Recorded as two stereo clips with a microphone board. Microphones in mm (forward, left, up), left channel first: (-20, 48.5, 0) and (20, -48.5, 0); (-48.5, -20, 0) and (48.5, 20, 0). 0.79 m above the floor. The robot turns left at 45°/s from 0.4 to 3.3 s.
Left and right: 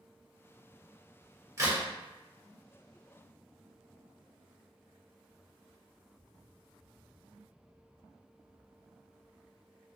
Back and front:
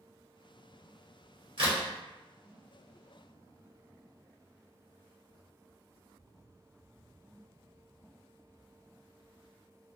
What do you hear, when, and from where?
1.6 s a crack: 10° right, 1.2 m; by 1.8 s 20° right, 1.2 m